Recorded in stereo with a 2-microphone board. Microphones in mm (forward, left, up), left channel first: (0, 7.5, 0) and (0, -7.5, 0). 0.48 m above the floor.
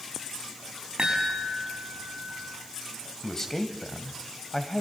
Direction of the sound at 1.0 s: 65° right (ahead or behind).